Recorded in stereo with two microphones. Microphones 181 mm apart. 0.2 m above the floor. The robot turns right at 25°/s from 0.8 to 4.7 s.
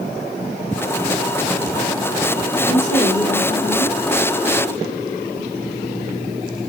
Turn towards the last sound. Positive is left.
turn(degrees=0)